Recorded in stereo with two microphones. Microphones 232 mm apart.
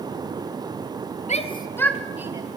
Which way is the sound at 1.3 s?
30° left (ahead or behind).